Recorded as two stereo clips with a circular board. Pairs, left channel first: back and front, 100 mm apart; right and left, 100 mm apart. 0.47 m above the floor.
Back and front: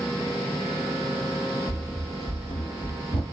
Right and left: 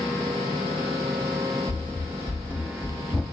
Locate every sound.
1.7 s running footsteps: 100° right, 0.8 m; by 3.2 s 175° left, 1.1 m